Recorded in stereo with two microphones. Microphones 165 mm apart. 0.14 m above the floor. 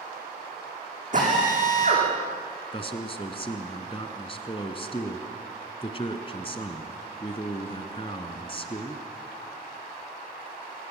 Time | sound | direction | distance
1.1 | a drill | 50° right (ahead or behind) | 9.5 m
2.7 | a man speaking | 35° left (ahead or behind) | 1.8 m